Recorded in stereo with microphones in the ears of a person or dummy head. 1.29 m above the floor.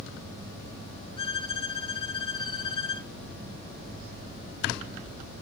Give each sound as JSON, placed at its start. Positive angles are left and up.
{"t": 1.2, "sound": "a violin", "side_deg": 25, "distance_m": 0.6}